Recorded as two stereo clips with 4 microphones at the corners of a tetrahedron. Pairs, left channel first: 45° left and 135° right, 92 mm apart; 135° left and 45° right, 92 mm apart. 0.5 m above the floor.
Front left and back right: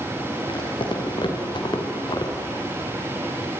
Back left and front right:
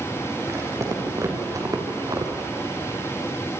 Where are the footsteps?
15° left, 6 m; by 2.5 s 5° left, 3 m.